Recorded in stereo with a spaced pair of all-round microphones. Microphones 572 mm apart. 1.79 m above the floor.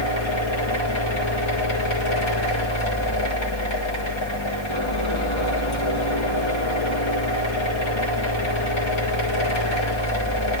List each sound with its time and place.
0.0 s a fan: 50° left (ahead or behind), 1.6 m